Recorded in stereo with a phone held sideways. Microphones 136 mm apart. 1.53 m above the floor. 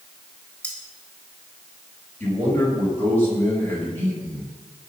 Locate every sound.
0.6 s cutlery clinking: 10° left (ahead or behind), 4 m
2.2 s a man speaking: 15° left (ahead or behind), 7.5 m